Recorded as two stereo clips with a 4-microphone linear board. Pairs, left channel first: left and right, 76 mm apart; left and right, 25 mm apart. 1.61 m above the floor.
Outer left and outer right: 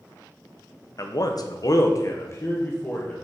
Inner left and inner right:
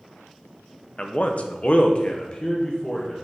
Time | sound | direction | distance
1.0 | a man speaking | 45° left (ahead or behind) | 0.7 m